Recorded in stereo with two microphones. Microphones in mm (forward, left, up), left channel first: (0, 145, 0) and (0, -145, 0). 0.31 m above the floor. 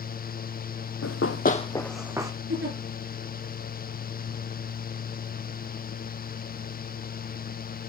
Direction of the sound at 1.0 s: 60° left (ahead or behind).